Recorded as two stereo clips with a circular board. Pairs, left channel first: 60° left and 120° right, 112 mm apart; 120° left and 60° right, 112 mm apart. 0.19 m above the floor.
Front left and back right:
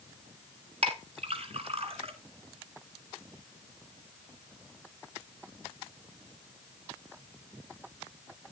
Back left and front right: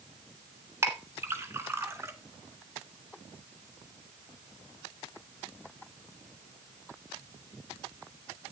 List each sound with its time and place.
0.8 s a clink: 120° right, 1.5 m